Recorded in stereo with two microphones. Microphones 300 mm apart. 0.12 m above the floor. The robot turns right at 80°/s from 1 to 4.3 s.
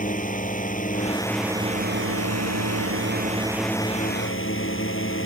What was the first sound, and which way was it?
A drone, 150° left.